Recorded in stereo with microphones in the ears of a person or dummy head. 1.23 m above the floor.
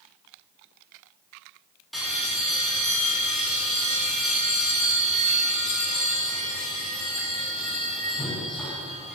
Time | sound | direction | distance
1.9 | a bell | centre (ahead or behind) | 3 m